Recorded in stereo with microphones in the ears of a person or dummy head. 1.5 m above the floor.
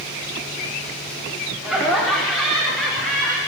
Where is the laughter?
Centre (ahead or behind), 5 m; by 3.4 s 5° left (ahead or behind), 7 m.